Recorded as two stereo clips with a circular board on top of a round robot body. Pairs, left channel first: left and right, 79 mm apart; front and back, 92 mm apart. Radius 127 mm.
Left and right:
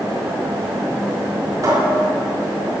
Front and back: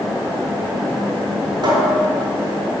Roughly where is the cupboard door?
Behind right.